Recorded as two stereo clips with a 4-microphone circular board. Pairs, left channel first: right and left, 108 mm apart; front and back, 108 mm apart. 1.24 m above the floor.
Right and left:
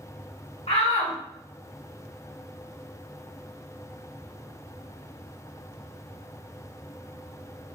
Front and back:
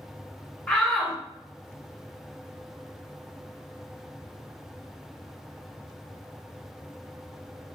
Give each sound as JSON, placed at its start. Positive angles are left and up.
{"t": 0.7, "sound": "a shout", "azimuth_deg": -85, "distance_m": 1.9}